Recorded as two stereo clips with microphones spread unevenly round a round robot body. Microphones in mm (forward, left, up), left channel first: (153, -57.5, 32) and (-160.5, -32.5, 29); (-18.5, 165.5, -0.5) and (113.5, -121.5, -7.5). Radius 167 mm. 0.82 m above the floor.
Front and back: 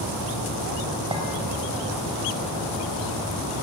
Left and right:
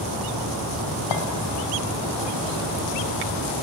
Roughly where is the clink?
Left.